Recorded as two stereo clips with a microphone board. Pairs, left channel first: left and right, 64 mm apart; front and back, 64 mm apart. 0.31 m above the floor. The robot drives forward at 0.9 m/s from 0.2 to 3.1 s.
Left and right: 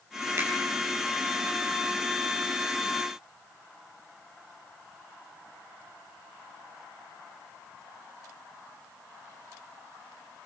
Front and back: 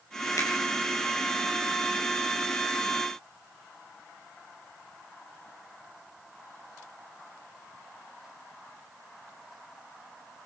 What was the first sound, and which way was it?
A finger snap, 40° right.